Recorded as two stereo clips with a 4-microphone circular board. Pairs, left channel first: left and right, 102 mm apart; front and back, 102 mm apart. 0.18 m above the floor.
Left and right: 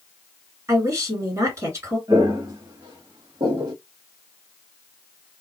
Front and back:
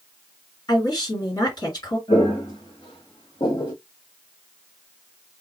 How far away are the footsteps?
About 2 m.